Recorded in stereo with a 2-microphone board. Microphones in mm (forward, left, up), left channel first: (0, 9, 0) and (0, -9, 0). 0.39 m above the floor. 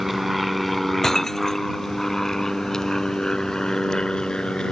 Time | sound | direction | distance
0.0 | an aircraft | 5° right (ahead or behind) | ?
1.0 | breaking glass | 25° left (ahead or behind) | ?